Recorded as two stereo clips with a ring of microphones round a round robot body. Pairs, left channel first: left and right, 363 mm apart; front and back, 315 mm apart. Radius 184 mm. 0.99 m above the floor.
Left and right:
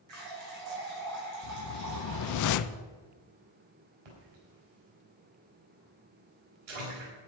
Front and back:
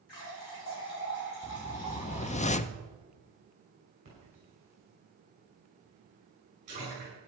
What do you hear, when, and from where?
0.1 s a running tap: 45° right, 5.5 m
1.4 s a whoosh: 65° left, 0.5 m
4.0 s a splash: 105° right, 5 m